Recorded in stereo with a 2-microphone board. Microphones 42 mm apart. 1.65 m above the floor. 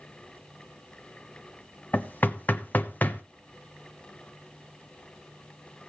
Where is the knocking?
45° left (ahead or behind), 1.1 m.